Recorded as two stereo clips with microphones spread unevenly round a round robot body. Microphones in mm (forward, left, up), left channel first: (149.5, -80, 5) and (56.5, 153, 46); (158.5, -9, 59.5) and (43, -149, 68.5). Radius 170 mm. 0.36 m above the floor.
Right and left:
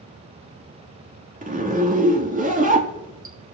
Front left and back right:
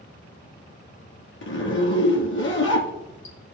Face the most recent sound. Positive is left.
turn(degrees=55)